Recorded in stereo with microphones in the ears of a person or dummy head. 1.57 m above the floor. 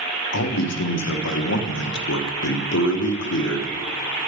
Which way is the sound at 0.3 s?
80° left.